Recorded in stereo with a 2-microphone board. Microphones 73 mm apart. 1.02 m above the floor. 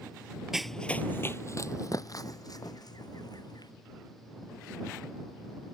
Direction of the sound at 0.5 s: 5° right (ahead or behind).